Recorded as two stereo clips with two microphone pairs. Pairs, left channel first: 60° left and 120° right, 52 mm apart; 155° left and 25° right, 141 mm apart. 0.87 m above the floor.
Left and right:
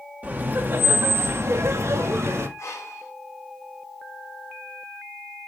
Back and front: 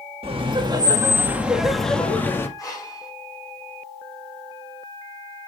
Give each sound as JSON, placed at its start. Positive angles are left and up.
{"t": 0.2, "sound": "laughter", "azimuth_deg": -65, "distance_m": 1.8}
{"t": 2.6, "sound": "breathing", "azimuth_deg": 90, "distance_m": 4.5}